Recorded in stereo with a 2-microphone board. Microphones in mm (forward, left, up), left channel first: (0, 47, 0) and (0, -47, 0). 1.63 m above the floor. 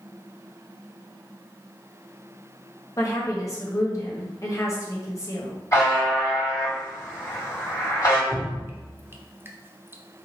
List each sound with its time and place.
3.0 s a woman speaking: 40° left (ahead or behind), 1.3 m
5.7 s a buzzer: 40° left (ahead or behind), 2.0 m
8.3 s dripping: 25° right (ahead or behind), 0.5 m